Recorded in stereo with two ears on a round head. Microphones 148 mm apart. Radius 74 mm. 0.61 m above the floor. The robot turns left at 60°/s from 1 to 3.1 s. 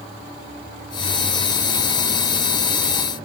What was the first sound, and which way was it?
Only background noise.